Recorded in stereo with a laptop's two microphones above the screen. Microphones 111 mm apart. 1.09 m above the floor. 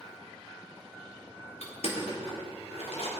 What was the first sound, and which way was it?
Crushing, 75° left (ahead or behind).